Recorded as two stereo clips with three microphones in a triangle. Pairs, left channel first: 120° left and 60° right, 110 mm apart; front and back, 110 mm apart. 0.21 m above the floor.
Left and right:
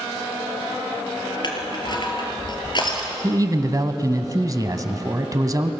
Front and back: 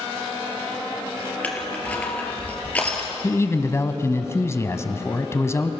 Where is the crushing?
75° left, 3 m.